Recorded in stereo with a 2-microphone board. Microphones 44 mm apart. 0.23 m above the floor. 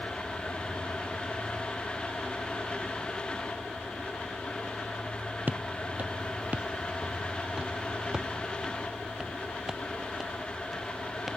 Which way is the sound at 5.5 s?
40° right (ahead or behind).